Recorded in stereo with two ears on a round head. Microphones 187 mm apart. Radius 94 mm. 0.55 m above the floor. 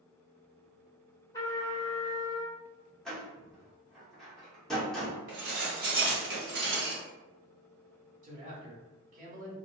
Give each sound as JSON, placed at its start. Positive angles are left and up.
{"t": 1.3, "sound": "a trumpet", "side_deg": 15, "distance_m": 0.7}
{"t": 3.0, "sound": "a door slam", "side_deg": 5, "distance_m": 1.0}
{"t": 5.3, "sound": "dishes clattering", "side_deg": -50, "distance_m": 1.1}
{"t": 8.2, "sound": "a man speaking", "side_deg": -40, "distance_m": 1.3}